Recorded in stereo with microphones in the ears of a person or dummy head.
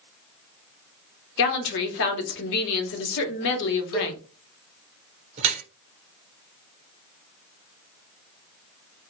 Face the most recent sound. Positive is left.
turn(degrees=-35)  # may be behind; listen again after turning